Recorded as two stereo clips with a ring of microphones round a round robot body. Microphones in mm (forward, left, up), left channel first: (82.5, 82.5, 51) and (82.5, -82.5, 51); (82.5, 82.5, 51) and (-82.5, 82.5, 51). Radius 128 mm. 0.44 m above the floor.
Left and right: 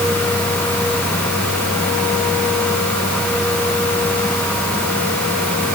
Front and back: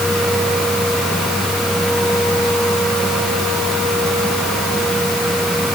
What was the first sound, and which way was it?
Only background noise.